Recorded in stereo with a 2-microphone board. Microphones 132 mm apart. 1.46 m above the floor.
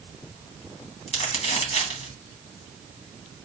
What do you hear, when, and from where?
1.1 s crumpling: 45° left (ahead or behind), 1.7 m